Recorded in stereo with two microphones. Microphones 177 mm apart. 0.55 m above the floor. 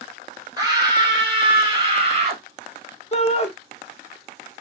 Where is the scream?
20° right (ahead or behind), 1.5 m; by 2.4 s 35° right (ahead or behind), 1.1 m.